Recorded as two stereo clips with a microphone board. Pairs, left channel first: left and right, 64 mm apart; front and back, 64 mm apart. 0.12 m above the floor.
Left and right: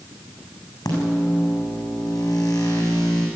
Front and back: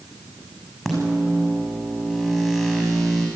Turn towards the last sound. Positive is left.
turn(degrees=95)